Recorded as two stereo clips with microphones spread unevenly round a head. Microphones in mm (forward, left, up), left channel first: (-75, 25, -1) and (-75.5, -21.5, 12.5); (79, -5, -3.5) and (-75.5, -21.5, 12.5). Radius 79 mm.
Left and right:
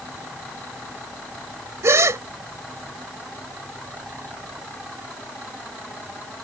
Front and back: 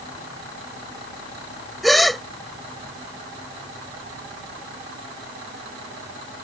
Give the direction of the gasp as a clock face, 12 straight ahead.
3 o'clock.